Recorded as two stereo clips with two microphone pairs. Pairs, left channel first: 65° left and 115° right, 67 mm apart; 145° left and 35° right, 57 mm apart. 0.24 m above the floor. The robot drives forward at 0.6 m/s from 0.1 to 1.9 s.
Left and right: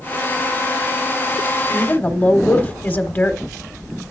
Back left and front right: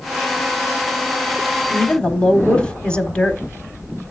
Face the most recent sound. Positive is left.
turn(degrees=90)